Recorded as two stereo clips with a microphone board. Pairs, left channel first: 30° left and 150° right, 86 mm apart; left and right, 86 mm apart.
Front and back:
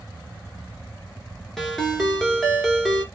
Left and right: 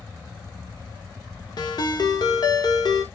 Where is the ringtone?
115° left, 1.0 m.